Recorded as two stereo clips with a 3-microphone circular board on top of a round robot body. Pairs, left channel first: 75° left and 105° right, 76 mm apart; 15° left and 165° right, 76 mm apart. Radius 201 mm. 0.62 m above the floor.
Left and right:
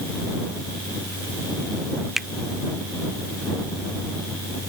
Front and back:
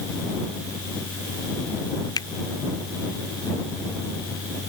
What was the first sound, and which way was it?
A finger snap, 20° right.